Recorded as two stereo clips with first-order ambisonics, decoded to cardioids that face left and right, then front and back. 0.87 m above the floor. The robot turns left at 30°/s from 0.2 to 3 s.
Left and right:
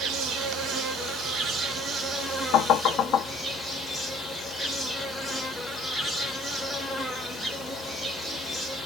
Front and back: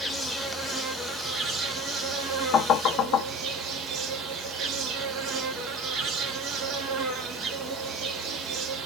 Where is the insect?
95° right, 0.8 m; by 8.9 s straight behind, 0.8 m.